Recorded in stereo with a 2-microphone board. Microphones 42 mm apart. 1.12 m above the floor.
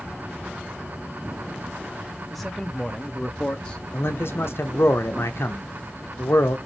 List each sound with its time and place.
2.3 s a man speaking: 5° left (ahead or behind), 0.9 m; by 3.8 s 20° left (ahead or behind), 0.8 m
3.9 s a man speaking: 65° left (ahead or behind), 0.7 m